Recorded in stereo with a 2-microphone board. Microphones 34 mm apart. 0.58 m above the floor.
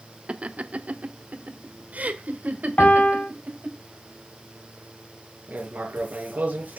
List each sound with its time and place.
0.3 s laughter: 35° right (ahead or behind), 0.7 m; by 3.8 s 55° right (ahead or behind), 2.5 m
2.8 s a piano: 50° left (ahead or behind), 1.3 m
5.5 s writing: 50° right (ahead or behind), 3.5 m